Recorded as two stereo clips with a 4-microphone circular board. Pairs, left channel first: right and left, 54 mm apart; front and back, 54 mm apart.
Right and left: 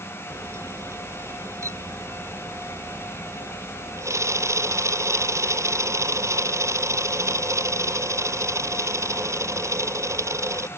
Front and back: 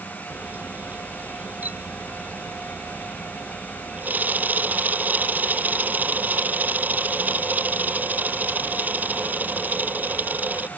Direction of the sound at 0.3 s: 120° left.